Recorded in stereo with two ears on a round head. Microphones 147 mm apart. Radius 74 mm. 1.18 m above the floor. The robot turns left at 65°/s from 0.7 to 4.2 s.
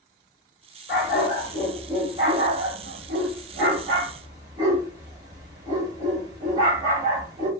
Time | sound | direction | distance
0.9 | a dog barking | 60° left (ahead or behind) | 2 m